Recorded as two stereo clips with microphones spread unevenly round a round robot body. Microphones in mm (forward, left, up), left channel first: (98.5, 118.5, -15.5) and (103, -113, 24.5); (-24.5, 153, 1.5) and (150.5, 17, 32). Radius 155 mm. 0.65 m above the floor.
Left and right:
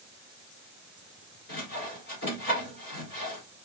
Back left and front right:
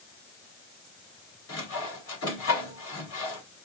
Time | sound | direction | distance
1.5 | sawing | 140° left | 1.7 m